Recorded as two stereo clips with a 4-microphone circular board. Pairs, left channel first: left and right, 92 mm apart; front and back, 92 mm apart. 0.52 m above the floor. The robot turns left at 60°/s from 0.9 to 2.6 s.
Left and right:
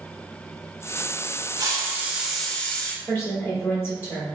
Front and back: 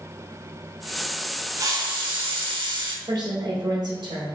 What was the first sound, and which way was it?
A hiss, 130° right.